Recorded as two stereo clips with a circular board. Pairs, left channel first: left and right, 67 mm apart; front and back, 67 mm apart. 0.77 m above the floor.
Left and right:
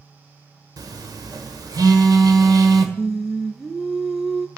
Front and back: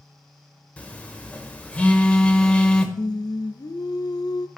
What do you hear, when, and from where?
0.8 s a phone buzzing: 70° right, 1.2 m
3.0 s singing: 10° right, 0.6 m